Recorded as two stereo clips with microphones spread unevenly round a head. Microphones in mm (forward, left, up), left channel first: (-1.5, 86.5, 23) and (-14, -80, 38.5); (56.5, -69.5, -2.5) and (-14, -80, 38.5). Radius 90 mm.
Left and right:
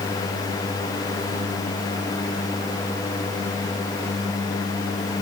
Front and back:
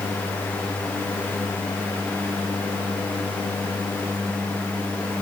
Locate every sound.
Only background noise.